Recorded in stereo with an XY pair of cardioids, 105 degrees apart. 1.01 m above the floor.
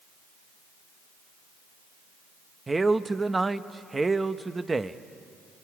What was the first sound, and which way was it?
A man speaking, 20° right.